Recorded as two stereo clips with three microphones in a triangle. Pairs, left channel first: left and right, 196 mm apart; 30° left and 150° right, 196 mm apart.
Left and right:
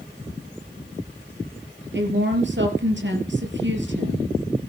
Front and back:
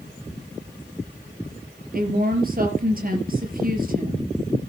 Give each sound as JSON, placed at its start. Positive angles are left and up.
{"t": 1.9, "sound": "a woman speaking", "azimuth_deg": -110, "distance_m": 4.5}